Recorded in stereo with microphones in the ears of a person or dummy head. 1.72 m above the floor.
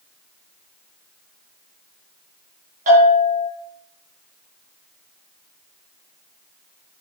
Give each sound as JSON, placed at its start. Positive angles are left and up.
{"t": 2.9, "sound": "a bell", "side_deg": -50, "distance_m": 6.0}